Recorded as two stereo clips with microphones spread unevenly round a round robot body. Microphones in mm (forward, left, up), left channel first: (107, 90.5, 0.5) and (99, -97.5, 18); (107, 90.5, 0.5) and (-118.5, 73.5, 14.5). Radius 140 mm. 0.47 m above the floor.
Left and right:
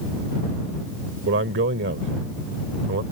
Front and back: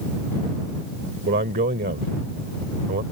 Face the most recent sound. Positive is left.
turn(degrees=-120)